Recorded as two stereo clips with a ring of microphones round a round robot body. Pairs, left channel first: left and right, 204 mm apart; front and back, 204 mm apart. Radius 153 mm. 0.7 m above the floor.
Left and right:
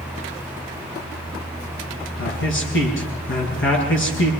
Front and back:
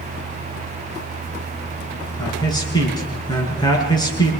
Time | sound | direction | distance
2.2 | a man speaking | 70° left | 8.5 m